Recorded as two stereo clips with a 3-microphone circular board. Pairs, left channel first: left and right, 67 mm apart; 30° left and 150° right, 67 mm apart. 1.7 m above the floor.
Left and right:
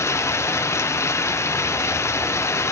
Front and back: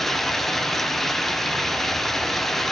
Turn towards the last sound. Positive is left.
turn(degrees=115)